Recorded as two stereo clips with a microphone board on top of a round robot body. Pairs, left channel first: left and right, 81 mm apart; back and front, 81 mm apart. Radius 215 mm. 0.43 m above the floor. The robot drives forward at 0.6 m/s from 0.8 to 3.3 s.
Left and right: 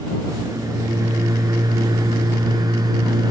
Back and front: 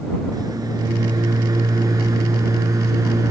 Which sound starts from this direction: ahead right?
A microwave, at 0.3 s.